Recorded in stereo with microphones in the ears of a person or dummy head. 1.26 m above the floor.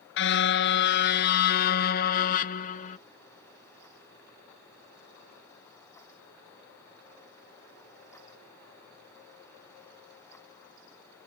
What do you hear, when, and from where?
0.2 s a car horn: 80° left; by 3.0 s 55° left (ahead or behind)